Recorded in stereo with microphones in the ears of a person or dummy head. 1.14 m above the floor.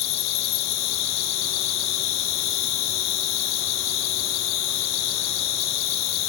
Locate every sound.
0.0 s an insect: 70° left (ahead or behind), 0.9 m